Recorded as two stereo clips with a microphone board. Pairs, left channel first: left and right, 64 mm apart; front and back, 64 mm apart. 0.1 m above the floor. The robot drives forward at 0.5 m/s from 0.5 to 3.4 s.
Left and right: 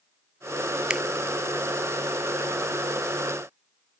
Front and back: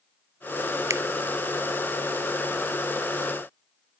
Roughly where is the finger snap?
Behind.